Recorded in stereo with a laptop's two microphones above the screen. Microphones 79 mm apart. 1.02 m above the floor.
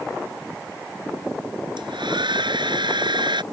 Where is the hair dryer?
80° right.